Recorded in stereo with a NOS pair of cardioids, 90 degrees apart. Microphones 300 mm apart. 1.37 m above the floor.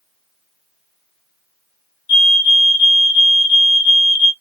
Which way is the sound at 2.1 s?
40° left.